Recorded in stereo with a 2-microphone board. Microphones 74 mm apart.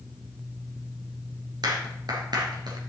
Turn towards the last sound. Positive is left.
turn(degrees=-70)  # may be behind; listen again after turning